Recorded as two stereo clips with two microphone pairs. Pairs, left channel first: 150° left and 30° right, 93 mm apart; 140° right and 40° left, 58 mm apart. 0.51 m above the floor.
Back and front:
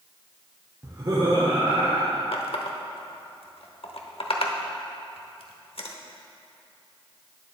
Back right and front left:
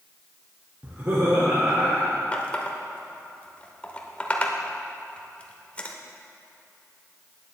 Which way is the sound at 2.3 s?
150° left.